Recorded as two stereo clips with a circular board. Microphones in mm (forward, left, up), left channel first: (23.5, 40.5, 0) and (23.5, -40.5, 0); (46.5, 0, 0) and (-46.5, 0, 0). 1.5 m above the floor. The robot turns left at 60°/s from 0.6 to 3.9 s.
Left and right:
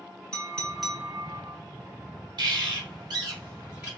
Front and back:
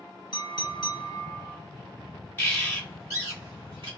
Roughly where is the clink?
Ahead.